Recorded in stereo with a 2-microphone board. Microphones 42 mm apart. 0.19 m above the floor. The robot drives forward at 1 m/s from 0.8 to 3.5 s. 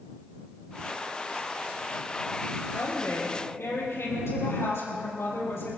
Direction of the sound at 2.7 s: 80° left.